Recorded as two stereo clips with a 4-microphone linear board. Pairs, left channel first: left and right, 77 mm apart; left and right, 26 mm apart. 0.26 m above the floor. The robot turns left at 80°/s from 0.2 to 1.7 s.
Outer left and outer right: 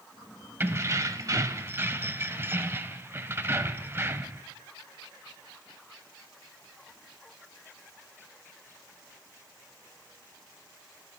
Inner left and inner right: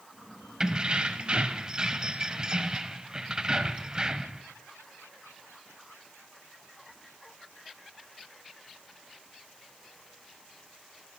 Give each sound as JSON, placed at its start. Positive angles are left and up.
{"t": 0.6, "sound": "keys jangling", "azimuth_deg": -45, "distance_m": 0.7}